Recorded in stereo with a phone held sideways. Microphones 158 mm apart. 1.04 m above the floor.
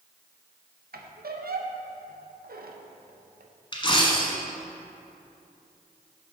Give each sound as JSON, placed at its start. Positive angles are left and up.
{"t": 0.9, "sound": "a squeak", "side_deg": -70, "distance_m": 0.6}
{"t": 3.7, "sound": "a dropped coin", "side_deg": 30, "distance_m": 1.0}